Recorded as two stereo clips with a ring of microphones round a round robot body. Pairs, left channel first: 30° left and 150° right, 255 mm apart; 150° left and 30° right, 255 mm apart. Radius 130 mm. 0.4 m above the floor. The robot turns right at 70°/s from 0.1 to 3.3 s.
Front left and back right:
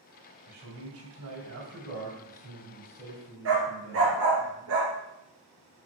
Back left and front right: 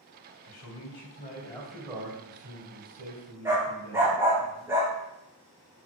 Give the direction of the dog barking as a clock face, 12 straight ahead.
4 o'clock.